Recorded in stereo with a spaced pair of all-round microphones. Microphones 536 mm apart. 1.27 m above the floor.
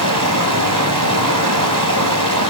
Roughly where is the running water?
Right.